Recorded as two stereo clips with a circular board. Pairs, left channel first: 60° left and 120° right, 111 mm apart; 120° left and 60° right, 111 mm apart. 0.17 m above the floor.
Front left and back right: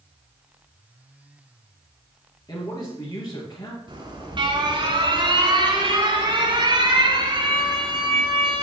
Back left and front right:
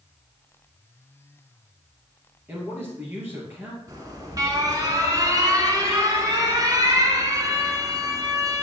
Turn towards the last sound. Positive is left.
turn(degrees=-105)